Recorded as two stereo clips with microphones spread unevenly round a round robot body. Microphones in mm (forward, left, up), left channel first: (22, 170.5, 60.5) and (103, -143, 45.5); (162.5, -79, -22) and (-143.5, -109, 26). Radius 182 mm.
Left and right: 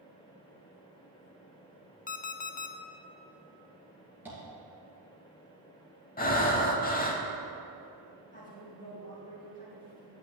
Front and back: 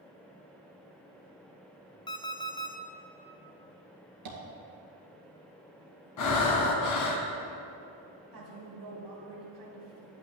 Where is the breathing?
40° left, 1.0 m.